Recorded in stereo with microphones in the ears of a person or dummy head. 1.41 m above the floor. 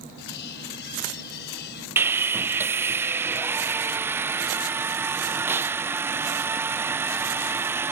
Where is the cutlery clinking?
60° left (ahead or behind).